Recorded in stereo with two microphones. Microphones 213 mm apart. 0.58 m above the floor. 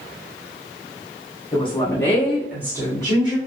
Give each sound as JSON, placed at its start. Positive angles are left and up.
{"t": 1.5, "sound": "a woman speaking", "side_deg": 25, "distance_m": 1.3}